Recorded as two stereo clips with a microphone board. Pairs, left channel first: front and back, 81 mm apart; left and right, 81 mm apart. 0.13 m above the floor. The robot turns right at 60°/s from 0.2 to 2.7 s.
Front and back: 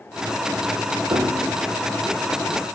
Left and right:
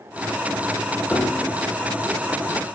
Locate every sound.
1.1 s a piano: 160° left, 3 m; by 1.6 s 170° right, 3 m